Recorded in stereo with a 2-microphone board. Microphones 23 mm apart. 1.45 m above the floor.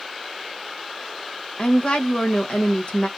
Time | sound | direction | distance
1.6 | a woman speaking | 50° left (ahead or behind) | 1.1 m